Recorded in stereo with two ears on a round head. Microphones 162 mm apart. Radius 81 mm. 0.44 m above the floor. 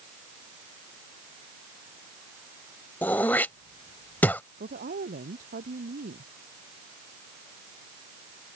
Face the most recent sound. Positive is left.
turn(degrees=-50)  # may be behind; listen again after turning